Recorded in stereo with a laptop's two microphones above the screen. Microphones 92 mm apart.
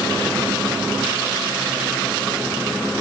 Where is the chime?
No chime in this recording.